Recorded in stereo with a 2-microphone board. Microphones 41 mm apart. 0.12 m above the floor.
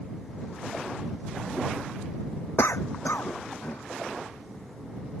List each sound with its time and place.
2.6 s a cough: 75° left (ahead or behind)